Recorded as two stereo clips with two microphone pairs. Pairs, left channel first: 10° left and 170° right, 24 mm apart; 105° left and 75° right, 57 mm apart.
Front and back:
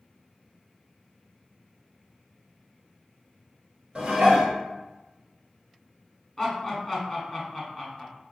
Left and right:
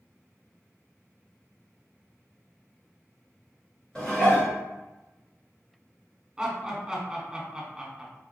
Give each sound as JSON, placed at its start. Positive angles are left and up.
{"t": 4.0, "sound": "dishes clattering", "azimuth_deg": 175, "distance_m": 1.5}
{"t": 6.4, "sound": "laughter", "azimuth_deg": -20, "distance_m": 1.0}